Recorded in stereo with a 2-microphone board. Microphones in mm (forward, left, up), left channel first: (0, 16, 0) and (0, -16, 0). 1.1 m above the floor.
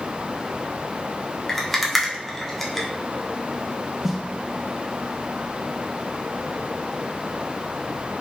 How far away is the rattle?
About 0.7 m.